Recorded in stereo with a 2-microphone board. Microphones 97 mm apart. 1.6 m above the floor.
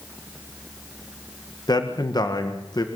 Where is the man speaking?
45° left (ahead or behind), 1.8 m.